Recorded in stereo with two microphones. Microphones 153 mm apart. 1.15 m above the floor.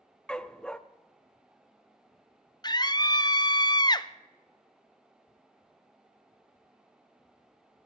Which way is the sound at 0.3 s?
5° left (ahead or behind).